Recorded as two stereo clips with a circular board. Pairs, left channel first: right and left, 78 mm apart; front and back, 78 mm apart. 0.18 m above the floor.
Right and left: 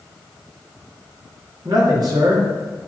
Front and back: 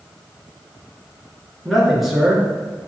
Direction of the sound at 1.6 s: 90° left.